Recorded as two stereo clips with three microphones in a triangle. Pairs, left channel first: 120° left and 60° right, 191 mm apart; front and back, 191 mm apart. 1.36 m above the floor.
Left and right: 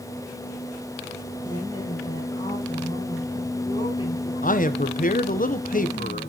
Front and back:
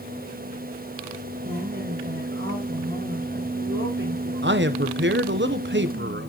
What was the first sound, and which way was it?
A woman speaking, 170° right.